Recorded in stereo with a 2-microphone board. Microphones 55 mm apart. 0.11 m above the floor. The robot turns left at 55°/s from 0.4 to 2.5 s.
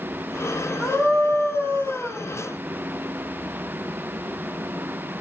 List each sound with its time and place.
0.8 s a scream: 15° left, 6.5 m; by 2.3 s 65° right, 6.5 m